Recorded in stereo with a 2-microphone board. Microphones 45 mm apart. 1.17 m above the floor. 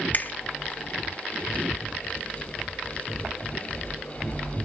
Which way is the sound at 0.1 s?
45° left (ahead or behind).